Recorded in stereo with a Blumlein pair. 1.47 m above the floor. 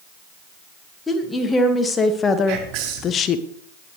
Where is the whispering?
40° right, 5.5 m.